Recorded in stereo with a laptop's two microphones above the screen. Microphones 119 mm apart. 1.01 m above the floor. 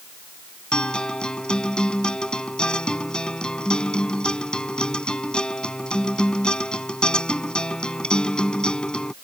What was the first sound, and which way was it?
A guitar, 10° left (ahead or behind).